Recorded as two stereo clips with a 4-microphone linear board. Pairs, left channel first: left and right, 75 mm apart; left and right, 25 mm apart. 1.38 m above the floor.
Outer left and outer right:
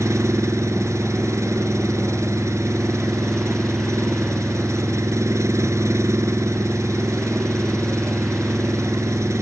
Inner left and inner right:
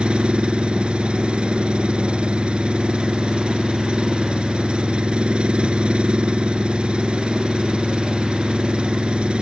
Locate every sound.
0.0 s an engine running: 40° right (ahead or behind)